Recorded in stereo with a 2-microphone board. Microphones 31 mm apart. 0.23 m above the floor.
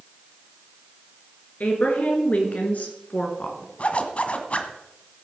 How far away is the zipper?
About 1.4 m.